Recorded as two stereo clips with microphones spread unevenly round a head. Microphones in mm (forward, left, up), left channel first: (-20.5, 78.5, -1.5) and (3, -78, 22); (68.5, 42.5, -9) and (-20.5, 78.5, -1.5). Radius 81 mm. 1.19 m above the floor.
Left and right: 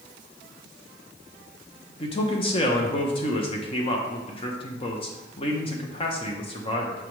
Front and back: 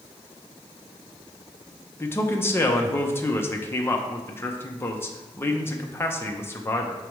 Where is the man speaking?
45° left, 0.8 m.